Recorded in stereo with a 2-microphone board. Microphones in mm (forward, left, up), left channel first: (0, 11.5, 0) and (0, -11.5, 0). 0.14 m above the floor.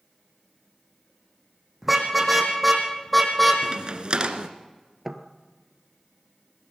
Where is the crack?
45° right (ahead or behind), 1.6 m.